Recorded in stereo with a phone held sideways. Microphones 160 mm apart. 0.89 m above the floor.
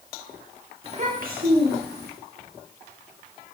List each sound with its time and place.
0.8 s a child speaking: 35° right (ahead or behind), 1.5 m; by 2.1 s 75° right (ahead or behind), 2 m